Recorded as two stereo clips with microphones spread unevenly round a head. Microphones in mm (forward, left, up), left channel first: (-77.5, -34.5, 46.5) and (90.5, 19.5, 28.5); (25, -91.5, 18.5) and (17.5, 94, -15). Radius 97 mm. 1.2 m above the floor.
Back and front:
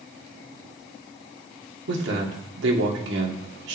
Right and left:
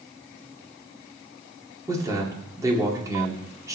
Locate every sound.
1.9 s a man speaking: 20° left, 2.5 m